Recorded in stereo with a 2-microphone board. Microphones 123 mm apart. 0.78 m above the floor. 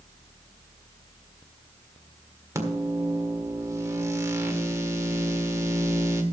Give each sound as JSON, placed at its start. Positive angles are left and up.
{"t": 2.5, "sound": "a microwave", "side_deg": -25, "distance_m": 1.7}